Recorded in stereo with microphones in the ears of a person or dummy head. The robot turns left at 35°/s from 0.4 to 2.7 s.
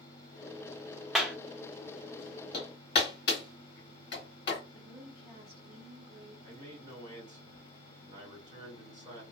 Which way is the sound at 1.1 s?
Centre (ahead or behind).